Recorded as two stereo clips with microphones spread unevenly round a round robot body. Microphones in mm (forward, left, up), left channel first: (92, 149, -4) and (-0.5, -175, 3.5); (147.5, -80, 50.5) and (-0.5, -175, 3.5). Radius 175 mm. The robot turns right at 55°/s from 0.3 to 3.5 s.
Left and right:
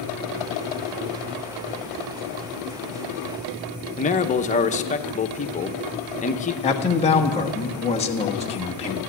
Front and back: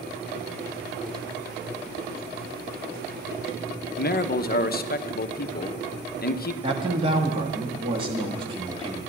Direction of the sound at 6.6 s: 145° left.